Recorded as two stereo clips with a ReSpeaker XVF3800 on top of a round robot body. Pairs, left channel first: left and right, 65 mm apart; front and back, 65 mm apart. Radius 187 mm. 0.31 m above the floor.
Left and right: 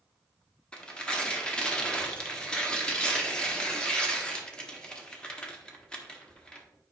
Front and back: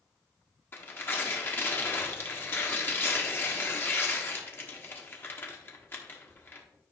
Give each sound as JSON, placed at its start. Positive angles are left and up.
{"t": 0.7, "sound": "tearing paper", "azimuth_deg": 25, "distance_m": 1.6}